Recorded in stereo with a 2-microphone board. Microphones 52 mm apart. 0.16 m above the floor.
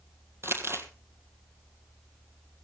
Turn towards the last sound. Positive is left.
turn(degrees=-50)  # may be behind; listen again after turning